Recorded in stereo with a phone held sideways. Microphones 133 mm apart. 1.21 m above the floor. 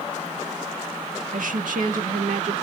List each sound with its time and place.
1.3 s a woman speaking: 85° right, 1.5 m; by 2.5 s 70° right (ahead or behind), 2.5 m